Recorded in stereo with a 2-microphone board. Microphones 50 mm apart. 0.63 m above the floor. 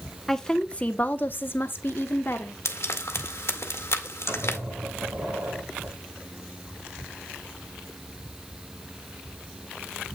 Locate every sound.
0.3 s a woman speaking: 10° left (ahead or behind), 0.9 m; by 2.5 s 45° left (ahead or behind), 1.4 m
2.6 s frying: 55° left (ahead or behind), 1.6 m
4.3 s a squeak: 50° right (ahead or behind), 4.5 m